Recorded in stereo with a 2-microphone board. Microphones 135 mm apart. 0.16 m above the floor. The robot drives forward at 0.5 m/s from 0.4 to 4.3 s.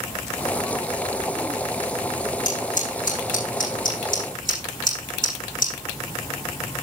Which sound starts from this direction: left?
Scissors, at 2.5 s.